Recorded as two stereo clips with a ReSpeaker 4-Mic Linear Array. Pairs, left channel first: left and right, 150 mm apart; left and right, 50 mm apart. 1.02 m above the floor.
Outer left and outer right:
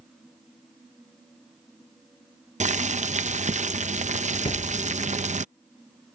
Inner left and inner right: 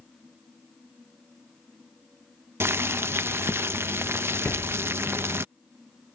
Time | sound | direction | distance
2.6 | boiling | 55° right (ahead or behind) | ?
4.5 | a thud | 35° left (ahead or behind) | ?